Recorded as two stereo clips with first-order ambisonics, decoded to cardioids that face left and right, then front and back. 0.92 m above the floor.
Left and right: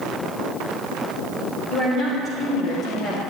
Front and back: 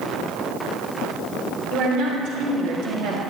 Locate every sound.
1.7 s a woman speaking: 150° left, 3.5 m; by 3.2 s 165° left, 1.9 m